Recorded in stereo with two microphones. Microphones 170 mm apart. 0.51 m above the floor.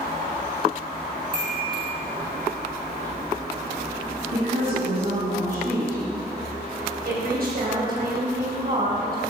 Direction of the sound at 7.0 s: 70° right (ahead or behind).